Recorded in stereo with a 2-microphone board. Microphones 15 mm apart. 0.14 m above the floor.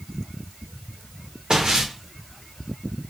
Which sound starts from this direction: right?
Footsteps, at 1.5 s.